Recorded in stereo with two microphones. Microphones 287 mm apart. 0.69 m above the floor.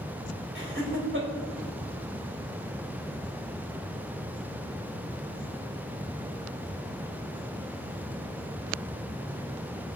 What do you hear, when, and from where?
0.6 s laughter: 45° right (ahead or behind), 4 m